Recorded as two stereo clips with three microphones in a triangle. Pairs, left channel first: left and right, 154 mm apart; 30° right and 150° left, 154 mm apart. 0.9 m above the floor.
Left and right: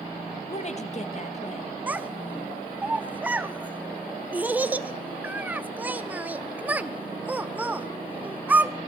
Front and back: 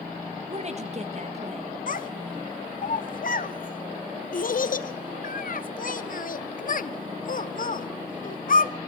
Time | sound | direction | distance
0.5 | a woman speaking | 120° left | 0.7 m
1.9 | a child speaking | 10° right | 0.6 m